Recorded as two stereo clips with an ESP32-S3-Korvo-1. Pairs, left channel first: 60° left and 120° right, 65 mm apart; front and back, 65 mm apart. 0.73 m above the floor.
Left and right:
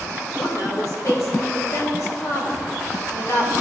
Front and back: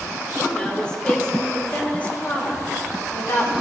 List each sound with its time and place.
0.4 s a woman speaking: 70° left, 2.5 m; by 3.5 s 25° left, 1.2 m